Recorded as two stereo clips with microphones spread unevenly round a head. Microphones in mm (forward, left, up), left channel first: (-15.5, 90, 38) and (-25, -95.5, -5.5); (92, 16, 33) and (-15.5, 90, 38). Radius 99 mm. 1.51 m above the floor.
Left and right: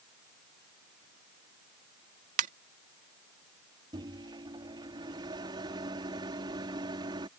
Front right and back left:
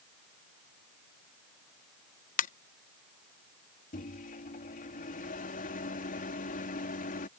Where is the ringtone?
35° right.